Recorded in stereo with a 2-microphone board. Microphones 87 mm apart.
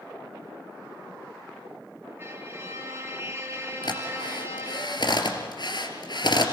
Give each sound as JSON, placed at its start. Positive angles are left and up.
{"t": 2.2, "sound": "a violin", "side_deg": -30, "distance_m": 3.0}
{"t": 3.8, "sound": "a drill", "side_deg": 60, "distance_m": 3.0}